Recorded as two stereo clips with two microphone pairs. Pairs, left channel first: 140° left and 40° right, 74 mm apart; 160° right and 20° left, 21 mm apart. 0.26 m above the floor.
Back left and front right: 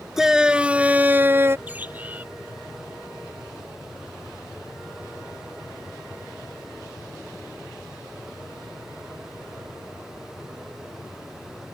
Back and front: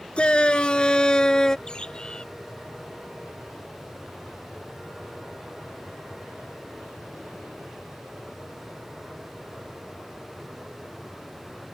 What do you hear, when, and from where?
0.2 s a shout: 125° right; by 1.6 s 95° right
1.7 s a bird: 110° right